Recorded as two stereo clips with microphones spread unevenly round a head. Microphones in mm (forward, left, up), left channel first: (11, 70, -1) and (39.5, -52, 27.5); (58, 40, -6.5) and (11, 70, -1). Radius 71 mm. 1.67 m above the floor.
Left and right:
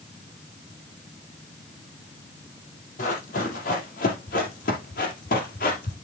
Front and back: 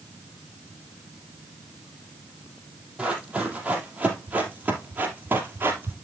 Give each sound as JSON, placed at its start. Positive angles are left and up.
{"t": 3.0, "sound": "running footsteps", "azimuth_deg": 80, "distance_m": 3.0}